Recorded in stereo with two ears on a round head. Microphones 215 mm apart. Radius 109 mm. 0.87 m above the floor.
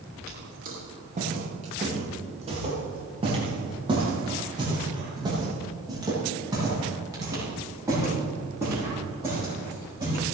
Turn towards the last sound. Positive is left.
turn(degrees=-10)  # may be behind; listen again after turning